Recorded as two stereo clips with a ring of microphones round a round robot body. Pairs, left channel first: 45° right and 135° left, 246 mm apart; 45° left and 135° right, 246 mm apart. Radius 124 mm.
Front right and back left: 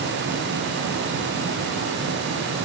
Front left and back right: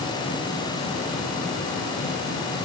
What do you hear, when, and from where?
Only background noise.